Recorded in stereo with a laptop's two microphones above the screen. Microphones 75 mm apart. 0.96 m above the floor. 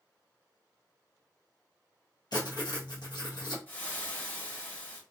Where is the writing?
65° left (ahead or behind), 1.0 m.